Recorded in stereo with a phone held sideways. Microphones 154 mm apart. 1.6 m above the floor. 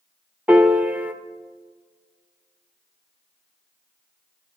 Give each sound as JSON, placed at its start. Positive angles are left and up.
{"t": 0.5, "sound": "a piano", "side_deg": -10, "distance_m": 0.8}